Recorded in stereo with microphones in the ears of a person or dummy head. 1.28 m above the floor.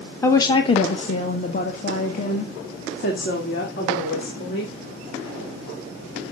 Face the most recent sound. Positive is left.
turn(degrees=60)  # may be behind; listen again after turning